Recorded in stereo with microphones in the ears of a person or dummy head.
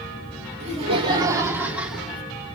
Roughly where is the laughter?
Right.